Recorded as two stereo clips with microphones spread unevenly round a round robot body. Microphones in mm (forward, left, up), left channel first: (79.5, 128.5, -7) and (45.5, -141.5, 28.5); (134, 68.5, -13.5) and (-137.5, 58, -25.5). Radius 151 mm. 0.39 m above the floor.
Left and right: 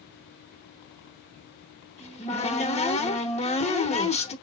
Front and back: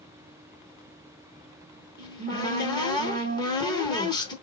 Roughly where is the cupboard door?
Left.